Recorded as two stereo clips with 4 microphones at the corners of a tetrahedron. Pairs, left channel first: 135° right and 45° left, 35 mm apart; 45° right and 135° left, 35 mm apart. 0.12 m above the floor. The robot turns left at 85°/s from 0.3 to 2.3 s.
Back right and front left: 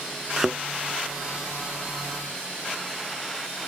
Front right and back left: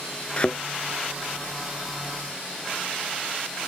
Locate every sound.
0.4 s a thud: 25° right; by 0.6 s 45° right